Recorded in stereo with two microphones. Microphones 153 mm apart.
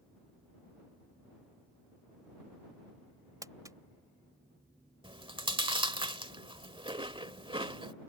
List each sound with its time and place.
3.4 s crumpling: 25° right (ahead or behind)
5.0 s chewing: 35° right (ahead or behind)